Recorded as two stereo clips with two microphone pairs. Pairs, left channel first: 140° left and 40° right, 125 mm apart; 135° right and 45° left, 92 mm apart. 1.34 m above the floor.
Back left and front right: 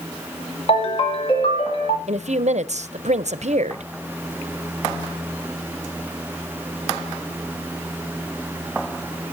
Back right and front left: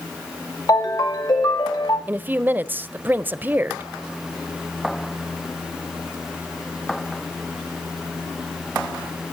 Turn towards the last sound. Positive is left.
turn(degrees=-25)